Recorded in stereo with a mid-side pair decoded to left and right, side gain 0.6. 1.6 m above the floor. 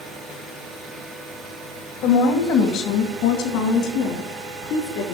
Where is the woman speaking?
70° left, 1.6 m; by 5.2 s 80° left, 3.5 m.